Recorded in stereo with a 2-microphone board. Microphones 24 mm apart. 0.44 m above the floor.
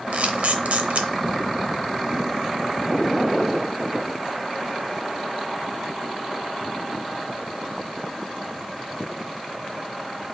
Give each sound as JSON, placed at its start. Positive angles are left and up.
{"t": 0.1, "sound": "a camera shutter", "side_deg": -75, "distance_m": 0.7}